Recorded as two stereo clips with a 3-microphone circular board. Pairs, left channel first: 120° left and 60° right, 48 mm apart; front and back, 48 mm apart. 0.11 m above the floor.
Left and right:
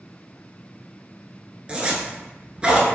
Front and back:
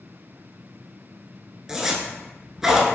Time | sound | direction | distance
1.7 | a zipper | 110° right | 0.9 m